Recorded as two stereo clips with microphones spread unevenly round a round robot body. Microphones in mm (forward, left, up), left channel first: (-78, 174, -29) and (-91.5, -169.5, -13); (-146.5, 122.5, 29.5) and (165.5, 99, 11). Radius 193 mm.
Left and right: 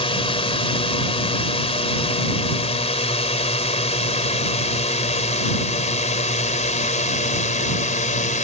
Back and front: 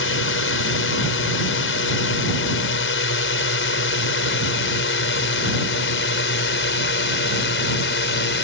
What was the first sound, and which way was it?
A drone, 155° left.